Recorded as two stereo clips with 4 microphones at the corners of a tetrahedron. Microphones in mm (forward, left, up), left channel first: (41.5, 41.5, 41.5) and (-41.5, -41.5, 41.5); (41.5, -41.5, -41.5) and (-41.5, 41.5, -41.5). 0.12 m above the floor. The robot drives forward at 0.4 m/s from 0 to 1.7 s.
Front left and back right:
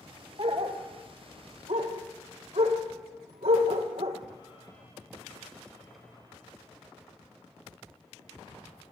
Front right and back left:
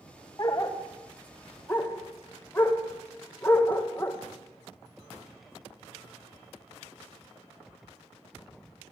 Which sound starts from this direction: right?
A dog barking, at 0.4 s.